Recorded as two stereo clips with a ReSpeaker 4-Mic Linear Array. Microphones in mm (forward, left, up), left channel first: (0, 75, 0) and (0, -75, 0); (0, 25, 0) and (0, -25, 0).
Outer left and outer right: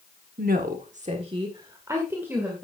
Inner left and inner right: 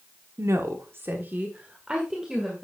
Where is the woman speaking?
80° right, 1.3 m; by 2.6 s 10° right (ahead or behind), 2.5 m.